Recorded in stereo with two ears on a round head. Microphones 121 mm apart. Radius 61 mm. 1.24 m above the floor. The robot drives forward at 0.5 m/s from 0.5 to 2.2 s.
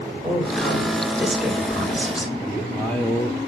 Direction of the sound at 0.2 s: 5° right (ahead or behind).